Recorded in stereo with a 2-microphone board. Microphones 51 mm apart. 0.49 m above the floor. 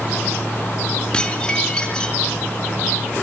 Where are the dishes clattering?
15° left (ahead or behind), 3.5 m.